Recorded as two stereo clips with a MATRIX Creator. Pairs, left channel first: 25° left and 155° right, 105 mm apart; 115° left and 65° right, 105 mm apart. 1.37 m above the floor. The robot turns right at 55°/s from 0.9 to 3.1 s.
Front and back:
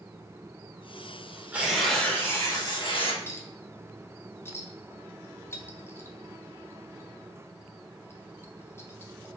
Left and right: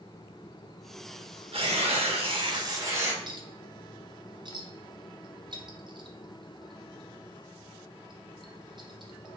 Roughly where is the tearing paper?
Right.